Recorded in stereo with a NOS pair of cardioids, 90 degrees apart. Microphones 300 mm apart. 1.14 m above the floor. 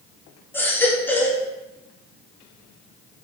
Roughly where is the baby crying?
Ahead.